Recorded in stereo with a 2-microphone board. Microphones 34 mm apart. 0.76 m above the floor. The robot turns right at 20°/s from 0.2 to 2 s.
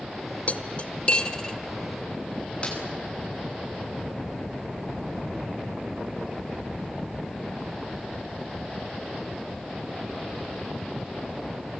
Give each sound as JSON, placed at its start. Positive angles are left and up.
{"t": 0.5, "sound": "cutlery clinking", "side_deg": 40, "distance_m": 1.5}
{"t": 2.6, "sound": "a snare drum", "side_deg": 30, "distance_m": 9.0}